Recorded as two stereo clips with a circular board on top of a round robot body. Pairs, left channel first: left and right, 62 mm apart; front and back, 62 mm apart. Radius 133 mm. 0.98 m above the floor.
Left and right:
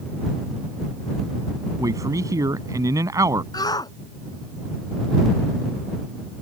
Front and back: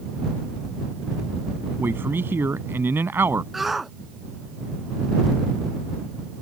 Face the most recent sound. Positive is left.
turn(degrees=95)